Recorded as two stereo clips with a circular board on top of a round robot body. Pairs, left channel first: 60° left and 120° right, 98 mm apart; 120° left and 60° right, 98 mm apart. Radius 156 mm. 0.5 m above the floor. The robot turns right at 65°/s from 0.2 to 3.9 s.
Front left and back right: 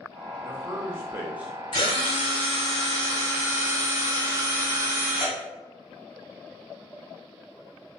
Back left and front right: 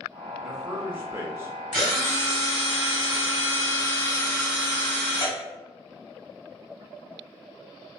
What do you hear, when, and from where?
0.4 s a man speaking: 130° right, 1.1 m; by 1.5 s 60° right, 1.1 m
1.7 s a drill: 35° left, 1.8 m; by 5.4 s 175° left, 1.8 m